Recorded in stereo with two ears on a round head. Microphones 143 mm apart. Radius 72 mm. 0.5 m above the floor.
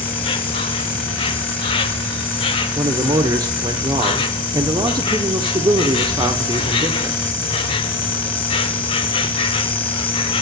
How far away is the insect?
About 0.8 m.